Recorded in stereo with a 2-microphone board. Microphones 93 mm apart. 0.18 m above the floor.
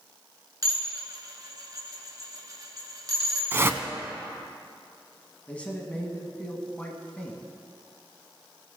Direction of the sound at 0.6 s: 40° right (ahead or behind).